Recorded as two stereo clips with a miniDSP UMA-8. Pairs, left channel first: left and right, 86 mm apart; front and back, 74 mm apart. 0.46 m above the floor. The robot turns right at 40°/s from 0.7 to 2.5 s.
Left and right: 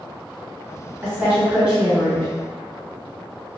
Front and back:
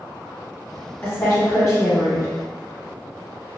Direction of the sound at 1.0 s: 40° right.